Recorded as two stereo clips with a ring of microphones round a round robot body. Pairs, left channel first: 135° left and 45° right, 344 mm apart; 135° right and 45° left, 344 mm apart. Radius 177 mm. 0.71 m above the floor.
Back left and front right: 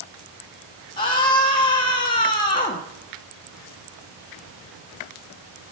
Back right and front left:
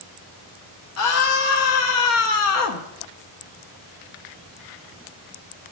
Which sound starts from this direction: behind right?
A scream, at 1.0 s.